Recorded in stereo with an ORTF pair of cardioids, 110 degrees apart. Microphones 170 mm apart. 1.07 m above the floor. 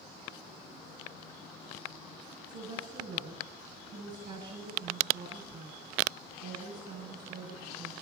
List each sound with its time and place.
2.5 s a woman speaking: 55° right, 9 m